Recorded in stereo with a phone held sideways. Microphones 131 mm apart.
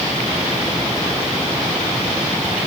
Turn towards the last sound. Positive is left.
No sound to turn to.